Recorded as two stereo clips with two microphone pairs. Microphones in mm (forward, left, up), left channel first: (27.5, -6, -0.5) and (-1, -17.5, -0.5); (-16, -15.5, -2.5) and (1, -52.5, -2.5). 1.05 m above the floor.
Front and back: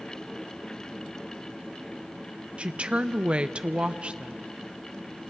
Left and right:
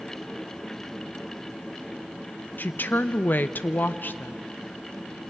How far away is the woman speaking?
About 0.6 m.